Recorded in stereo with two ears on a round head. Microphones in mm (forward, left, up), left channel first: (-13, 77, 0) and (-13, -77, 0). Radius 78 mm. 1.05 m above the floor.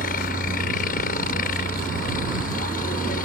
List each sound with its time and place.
0.0 s a helicopter: 50° left (ahead or behind)